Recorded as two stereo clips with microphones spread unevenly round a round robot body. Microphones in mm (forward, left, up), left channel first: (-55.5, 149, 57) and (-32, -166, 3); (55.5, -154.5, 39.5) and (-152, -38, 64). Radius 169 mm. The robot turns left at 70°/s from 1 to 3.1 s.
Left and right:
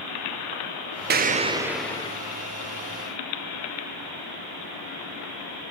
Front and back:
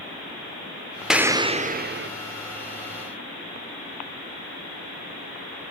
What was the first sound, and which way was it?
An explosion, 115° right.